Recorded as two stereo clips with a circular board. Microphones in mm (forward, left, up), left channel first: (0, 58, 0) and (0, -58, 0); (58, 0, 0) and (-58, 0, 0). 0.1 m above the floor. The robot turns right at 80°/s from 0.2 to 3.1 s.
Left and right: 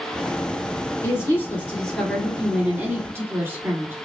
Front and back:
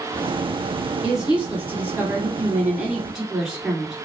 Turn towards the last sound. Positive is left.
turn(degrees=-100)